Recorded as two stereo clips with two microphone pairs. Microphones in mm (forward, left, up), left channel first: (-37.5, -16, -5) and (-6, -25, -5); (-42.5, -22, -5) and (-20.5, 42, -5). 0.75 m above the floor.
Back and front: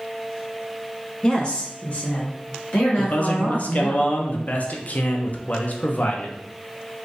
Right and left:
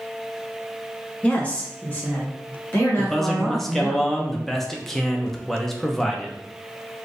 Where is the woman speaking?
165° right, 0.7 m; by 4.0 s 170° right, 1.9 m.